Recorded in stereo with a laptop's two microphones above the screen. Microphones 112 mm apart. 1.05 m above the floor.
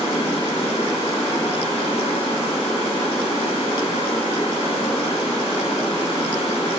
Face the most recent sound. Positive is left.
turn(degrees=60)  # may be behind; listen again after turning